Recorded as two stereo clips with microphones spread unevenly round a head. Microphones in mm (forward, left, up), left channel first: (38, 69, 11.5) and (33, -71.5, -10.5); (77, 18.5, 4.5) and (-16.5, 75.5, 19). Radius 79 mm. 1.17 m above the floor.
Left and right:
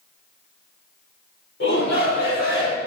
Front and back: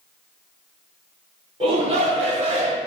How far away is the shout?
About 3.5 m.